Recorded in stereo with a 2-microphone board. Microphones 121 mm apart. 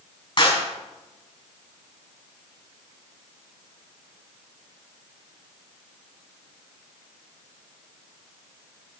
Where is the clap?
45° left (ahead or behind), 5 m.